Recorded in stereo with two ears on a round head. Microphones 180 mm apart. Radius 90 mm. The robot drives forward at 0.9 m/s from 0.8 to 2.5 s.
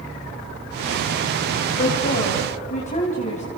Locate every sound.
1.8 s a woman speaking: 45° left (ahead or behind), 2.5 m; by 3.4 s 40° left (ahead or behind), 2.5 m